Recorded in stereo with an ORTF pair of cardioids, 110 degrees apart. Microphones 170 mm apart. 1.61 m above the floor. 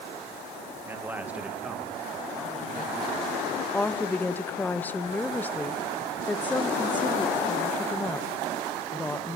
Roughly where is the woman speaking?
Ahead.